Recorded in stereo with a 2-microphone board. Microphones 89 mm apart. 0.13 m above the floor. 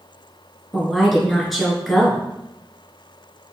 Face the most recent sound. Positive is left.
turn(degrees=0)  # may be behind; listen again after turning